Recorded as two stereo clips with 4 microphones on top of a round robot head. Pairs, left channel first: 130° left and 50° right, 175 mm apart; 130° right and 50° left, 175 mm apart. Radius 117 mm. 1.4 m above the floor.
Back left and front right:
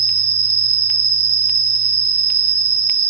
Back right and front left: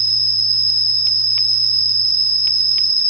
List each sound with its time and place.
0.0 s an insect: 130° right, 1.0 m